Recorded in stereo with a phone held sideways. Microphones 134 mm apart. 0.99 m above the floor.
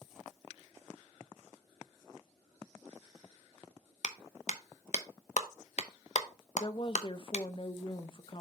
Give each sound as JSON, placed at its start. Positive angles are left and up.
{"t": 4.0, "sound": "a clap", "side_deg": 60, "distance_m": 0.8}
{"t": 6.6, "sound": "a woman speaking", "side_deg": 40, "distance_m": 0.6}